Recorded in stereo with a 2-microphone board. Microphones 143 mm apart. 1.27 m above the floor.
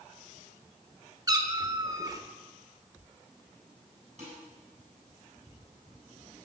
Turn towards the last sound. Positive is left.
turn(degrees=-55)  # may be behind; listen again after turning